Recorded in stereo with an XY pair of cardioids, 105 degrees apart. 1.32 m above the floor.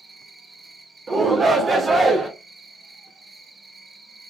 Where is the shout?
35° right, 1.2 m.